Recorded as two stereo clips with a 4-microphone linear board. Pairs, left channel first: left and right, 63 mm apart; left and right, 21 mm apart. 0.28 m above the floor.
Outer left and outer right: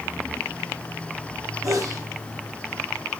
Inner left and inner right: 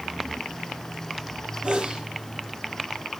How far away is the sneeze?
About 8 m.